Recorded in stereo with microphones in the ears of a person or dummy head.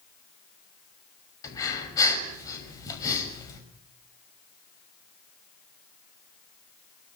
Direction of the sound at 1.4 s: 20° left (ahead or behind).